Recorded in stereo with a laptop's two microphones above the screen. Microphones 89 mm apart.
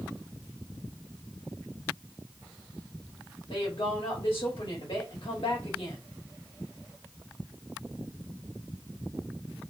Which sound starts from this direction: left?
A woman speaking, at 3.5 s.